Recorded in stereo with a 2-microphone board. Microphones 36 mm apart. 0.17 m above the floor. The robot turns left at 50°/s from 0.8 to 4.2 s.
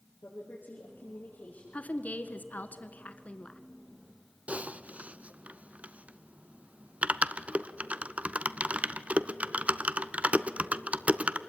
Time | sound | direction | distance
0.2 | a woman speaking | 85° left | 5.5 m
1.7 | a woman speaking | 130° left | 1.6 m
4.5 | typing on a keyboard | 45° right (ahead or behind) | 0.7 m